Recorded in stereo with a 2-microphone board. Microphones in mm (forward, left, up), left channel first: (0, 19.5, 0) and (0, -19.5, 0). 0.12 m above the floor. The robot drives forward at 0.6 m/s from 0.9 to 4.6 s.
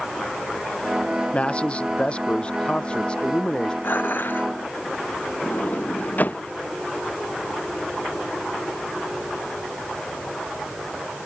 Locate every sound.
1.3 s a man speaking: 30° left (ahead or behind); by 3.7 s 25° left (ahead or behind)
3.8 s dishes clattering: 60° left (ahead or behind)
5.4 s a sliding door: 50° left (ahead or behind)